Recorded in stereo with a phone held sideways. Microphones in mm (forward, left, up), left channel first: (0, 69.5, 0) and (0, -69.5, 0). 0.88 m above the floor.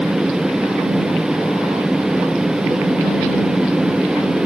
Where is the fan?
5° right (ahead or behind).